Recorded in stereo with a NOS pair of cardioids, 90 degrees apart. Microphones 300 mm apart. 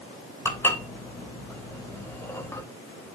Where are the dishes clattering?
10° left, 3 m.